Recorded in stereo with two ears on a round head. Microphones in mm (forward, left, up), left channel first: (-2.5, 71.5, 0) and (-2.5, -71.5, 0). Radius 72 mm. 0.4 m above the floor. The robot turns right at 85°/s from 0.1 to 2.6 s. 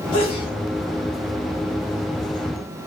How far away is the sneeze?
About 1.0 m.